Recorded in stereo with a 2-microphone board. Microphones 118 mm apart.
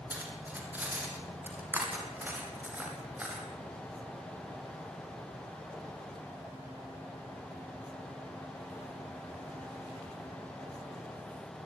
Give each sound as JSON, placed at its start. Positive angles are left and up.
{"t": 0.1, "sound": "cutlery clinking", "side_deg": -15, "distance_m": 5.0}